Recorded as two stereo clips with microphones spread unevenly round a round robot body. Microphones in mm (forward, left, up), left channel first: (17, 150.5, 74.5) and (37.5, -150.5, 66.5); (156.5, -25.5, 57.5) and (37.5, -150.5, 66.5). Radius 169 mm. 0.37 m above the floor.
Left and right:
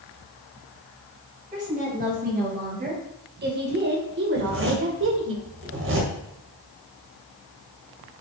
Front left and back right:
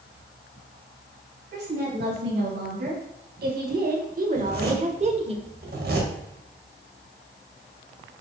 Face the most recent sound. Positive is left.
turn(degrees=-130)